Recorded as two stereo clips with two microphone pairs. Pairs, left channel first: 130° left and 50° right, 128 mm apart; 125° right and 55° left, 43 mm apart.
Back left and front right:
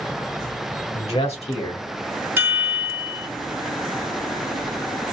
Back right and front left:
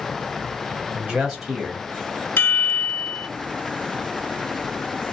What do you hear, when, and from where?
0.9 s a man speaking: 120° left, 1.8 m; by 2.3 s 165° left, 1.9 m
2.4 s a chime: 120° right, 1.4 m